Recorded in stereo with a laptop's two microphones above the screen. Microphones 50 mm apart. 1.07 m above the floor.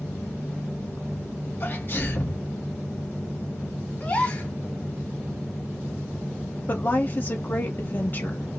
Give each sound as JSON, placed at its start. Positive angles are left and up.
{"t": 1.6, "sound": "a sneeze", "side_deg": 35, "distance_m": 1.0}
{"t": 4.0, "sound": "a gasp", "side_deg": 25, "distance_m": 0.8}
{"t": 6.7, "sound": "a woman speaking", "side_deg": 35, "distance_m": 1.0}